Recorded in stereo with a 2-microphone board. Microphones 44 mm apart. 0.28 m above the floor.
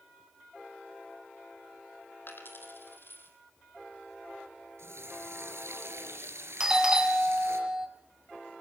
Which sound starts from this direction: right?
A running tap, at 4.8 s.